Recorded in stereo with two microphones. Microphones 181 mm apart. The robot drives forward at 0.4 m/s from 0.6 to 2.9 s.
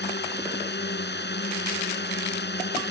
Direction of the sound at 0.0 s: 70° left (ahead or behind).